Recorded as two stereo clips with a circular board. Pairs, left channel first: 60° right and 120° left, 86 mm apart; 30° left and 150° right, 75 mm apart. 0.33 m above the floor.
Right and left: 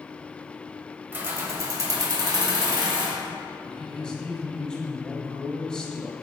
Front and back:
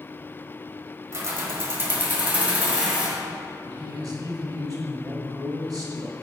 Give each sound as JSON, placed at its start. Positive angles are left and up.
{"t": 1.1, "sound": "keys jangling", "azimuth_deg": 175, "distance_m": 1.0}
{"t": 3.6, "sound": "a man speaking", "azimuth_deg": -140, "distance_m": 1.5}